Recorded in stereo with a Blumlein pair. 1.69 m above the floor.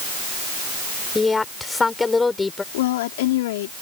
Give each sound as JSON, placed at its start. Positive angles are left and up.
{"t": 1.1, "sound": "a woman speaking", "azimuth_deg": 10}
{"t": 2.7, "sound": "a woman speaking", "azimuth_deg": 55}